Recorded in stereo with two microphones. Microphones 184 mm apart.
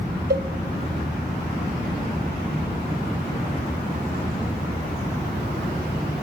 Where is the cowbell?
65° right (ahead or behind), 0.6 m.